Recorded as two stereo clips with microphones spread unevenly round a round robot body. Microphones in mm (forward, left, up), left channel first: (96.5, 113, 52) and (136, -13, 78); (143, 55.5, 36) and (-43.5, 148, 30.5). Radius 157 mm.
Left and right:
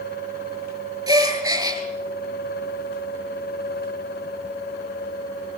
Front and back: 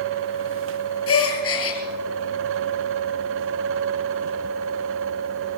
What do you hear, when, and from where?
1.1 s a gasp: 10° right, 5.5 m